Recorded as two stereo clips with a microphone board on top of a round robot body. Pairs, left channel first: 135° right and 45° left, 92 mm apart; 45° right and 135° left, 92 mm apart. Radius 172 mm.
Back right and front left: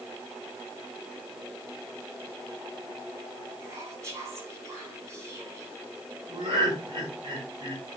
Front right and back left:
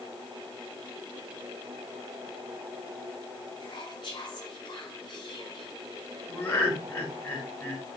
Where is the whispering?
10° right, 5.5 m.